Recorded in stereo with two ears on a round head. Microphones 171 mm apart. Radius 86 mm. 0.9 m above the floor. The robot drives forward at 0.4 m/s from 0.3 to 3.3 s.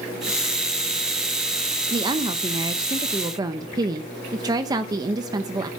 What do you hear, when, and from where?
1.9 s a woman speaking: 20° right (ahead or behind), 0.9 m